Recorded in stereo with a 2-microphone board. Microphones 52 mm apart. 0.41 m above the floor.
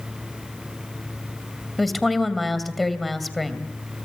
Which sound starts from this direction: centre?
A woman speaking, at 1.8 s.